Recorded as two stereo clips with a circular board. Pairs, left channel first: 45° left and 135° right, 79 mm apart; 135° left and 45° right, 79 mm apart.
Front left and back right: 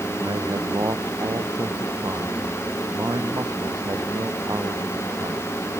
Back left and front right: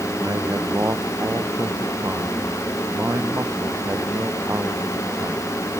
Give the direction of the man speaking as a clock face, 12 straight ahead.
3 o'clock.